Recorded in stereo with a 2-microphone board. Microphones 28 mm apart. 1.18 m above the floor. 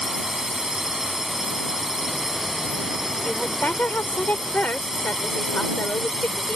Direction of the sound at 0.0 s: 10° right (ahead or behind).